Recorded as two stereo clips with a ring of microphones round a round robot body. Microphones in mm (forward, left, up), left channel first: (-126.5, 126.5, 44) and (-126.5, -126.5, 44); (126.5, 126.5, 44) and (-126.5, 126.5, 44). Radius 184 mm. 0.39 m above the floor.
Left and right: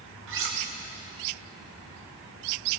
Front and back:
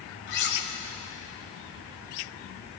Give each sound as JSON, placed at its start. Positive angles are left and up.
{"t": 0.3, "sound": "cutlery clinking", "azimuth_deg": -50, "distance_m": 1.4}